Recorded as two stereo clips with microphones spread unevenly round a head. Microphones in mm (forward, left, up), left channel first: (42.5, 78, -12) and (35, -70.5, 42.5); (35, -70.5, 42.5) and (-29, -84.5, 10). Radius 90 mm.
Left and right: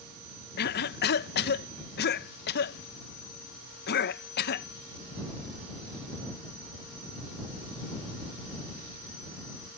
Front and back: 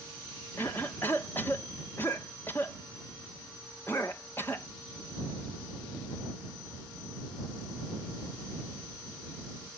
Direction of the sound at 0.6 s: 95° left.